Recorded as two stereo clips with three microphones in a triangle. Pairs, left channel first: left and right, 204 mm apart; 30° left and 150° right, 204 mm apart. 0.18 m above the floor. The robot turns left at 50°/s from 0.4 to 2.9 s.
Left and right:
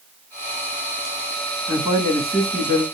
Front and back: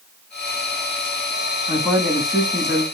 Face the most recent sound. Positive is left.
turn(degrees=-95)